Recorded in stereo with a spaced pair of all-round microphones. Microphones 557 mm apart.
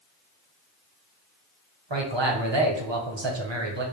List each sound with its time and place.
1.9 s a man speaking: 50° right (ahead or behind), 0.9 m